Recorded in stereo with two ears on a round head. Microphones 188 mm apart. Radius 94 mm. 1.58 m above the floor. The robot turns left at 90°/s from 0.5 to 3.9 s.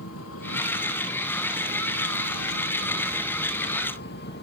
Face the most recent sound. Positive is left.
turn(degrees=125)